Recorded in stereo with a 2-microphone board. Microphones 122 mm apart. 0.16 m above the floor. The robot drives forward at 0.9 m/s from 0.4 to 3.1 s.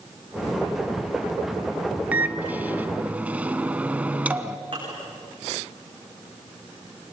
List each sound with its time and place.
2.1 s a microwave: 15° right (ahead or behind), 0.9 m; by 4.6 s 10° right (ahead or behind), 1.0 m
4.7 s dishes clattering: 45° right (ahead or behind), 8.5 m